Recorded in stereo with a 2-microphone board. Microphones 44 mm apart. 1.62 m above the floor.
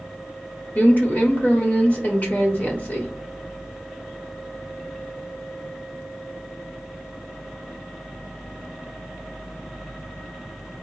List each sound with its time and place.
0.8 s a woman speaking: 35° left (ahead or behind), 1.5 m